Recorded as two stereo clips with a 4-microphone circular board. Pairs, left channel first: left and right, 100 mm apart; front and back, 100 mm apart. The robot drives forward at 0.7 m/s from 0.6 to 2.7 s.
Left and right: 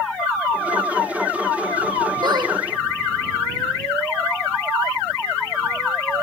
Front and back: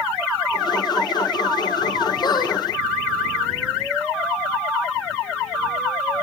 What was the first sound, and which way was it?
A squeak, 45° right.